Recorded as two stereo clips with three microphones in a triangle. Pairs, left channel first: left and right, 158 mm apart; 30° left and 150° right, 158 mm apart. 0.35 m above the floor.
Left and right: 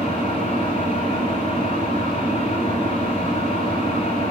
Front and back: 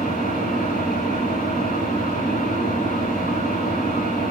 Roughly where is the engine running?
Ahead left.